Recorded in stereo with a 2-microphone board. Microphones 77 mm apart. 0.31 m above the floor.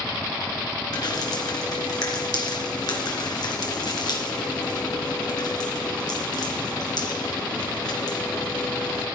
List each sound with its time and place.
0.9 s dripping: 65° left (ahead or behind), 3 m